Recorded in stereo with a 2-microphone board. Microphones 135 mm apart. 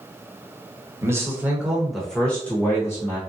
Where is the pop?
No pop in this recording.